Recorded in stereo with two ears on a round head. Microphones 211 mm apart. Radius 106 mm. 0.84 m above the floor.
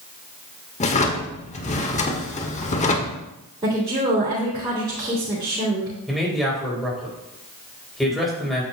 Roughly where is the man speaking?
Centre.